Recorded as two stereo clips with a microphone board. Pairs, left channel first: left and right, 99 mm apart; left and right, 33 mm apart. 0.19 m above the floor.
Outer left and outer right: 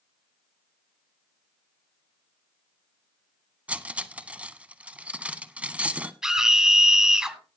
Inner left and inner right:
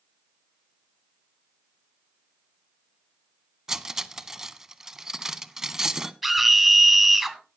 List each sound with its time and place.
3.7 s cutlery clinking: 15° right (ahead or behind), 0.7 m
6.2 s a scream: 5° right (ahead or behind), 1.8 m